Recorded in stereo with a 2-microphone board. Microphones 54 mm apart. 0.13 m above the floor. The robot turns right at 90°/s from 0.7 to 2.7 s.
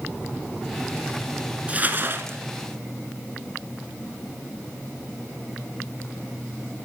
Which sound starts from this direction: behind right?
Crumpling, at 1.7 s.